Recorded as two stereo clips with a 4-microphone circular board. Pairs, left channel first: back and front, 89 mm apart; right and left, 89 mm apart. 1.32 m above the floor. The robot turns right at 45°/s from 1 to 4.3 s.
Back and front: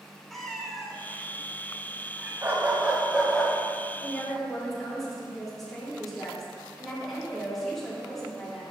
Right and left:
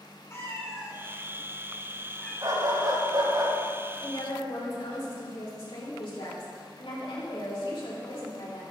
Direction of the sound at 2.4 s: 50° left.